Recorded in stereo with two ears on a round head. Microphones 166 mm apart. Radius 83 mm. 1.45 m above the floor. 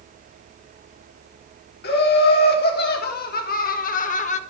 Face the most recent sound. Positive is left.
turn(degrees=35)  # may be behind; listen again after turning